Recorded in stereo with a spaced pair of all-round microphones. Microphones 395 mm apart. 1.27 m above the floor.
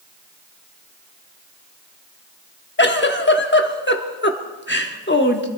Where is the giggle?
30° left (ahead or behind), 1.0 m.